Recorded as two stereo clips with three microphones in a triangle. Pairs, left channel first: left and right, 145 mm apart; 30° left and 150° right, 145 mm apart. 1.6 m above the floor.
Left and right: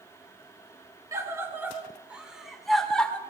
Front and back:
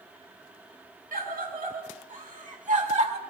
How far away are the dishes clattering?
I don't hear dishes clattering.